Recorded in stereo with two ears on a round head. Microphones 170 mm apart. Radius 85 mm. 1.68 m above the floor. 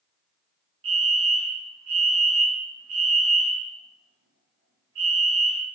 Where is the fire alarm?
75° right (ahead or behind), 1.4 m.